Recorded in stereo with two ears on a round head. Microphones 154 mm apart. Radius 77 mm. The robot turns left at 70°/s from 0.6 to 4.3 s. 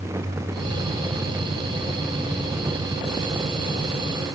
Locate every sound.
Only background noise.